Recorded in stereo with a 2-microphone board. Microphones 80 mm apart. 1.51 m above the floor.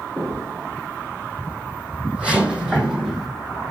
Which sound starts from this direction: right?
Footsteps, at 0.2 s.